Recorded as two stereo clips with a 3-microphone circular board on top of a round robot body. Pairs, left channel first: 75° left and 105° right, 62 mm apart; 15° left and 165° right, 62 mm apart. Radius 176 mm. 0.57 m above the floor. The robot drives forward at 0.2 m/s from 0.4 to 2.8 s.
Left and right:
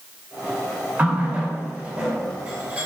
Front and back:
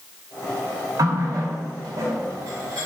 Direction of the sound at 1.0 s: 170° right.